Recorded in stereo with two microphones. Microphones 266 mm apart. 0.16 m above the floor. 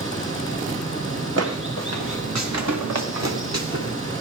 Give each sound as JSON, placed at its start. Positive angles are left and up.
{"t": 0.0, "sound": "running water", "side_deg": -50, "distance_m": 4.5}
{"t": 1.4, "sound": "footsteps", "side_deg": -65, "distance_m": 1.6}